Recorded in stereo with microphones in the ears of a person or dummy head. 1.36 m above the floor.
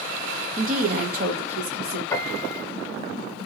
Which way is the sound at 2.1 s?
20° left (ahead or behind).